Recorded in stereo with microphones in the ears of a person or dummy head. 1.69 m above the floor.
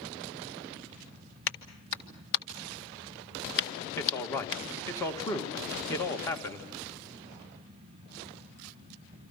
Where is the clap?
65° left (ahead or behind), 1.7 m.